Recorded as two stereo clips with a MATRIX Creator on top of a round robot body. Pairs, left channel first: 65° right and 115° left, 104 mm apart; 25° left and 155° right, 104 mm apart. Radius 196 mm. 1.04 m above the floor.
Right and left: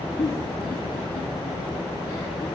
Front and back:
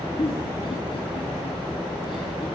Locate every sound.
0.2 s a giggle: 20° right, 3.5 m